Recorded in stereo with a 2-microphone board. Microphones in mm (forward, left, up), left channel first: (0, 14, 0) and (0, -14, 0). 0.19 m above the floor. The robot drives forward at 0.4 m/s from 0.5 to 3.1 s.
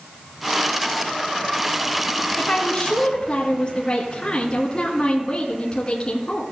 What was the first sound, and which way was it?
A woman speaking, 40° left (ahead or behind).